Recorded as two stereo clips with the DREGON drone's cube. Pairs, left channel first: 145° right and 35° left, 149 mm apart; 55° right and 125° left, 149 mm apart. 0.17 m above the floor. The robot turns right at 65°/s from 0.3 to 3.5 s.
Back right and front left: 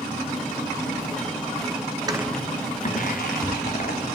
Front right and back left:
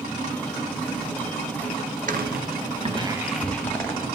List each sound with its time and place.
2.1 s footsteps: 95° left, 0.6 m; by 4.0 s 135° right, 2 m